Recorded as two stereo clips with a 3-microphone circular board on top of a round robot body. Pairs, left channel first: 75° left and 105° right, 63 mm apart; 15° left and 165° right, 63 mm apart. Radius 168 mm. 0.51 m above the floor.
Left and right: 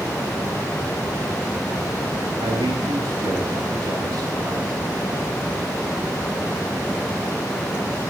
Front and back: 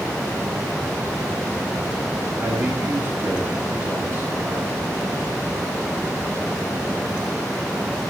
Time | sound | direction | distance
2.4 | a man speaking | 110° right | 5.5 m